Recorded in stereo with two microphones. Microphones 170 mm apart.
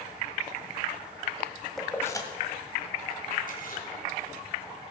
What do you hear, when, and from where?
1.8 s keys jangling: centre (ahead or behind), 1.5 m; by 3.8 s 60° left (ahead or behind), 3 m